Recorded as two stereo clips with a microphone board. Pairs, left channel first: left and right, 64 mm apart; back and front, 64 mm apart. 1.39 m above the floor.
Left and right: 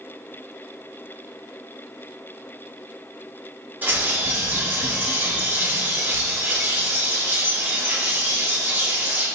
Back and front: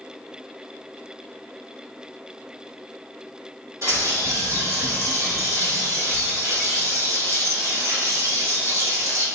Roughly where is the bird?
Ahead right.